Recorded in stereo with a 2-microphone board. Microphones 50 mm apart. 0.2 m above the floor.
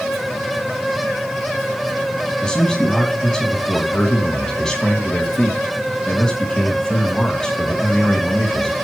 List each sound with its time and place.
2.4 s a man speaking: 15° left (ahead or behind), 1.9 m